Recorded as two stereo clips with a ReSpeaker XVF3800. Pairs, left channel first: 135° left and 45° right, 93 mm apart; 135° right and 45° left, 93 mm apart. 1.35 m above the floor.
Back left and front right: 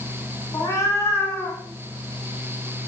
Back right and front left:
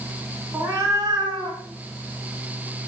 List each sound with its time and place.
0.5 s a cat meowing: 105° left, 1.9 m; by 1.6 s 65° left, 3 m